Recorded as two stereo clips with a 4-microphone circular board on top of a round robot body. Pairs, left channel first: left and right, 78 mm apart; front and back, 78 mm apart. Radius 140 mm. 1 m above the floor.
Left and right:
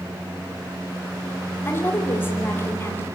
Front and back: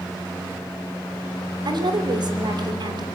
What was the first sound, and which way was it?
A woman speaking, 155° left.